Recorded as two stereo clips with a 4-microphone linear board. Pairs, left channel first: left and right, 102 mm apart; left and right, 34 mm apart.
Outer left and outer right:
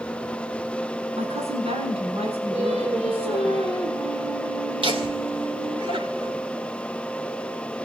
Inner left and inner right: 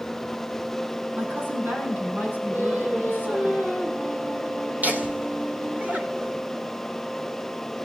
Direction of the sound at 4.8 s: 60° right (ahead or behind).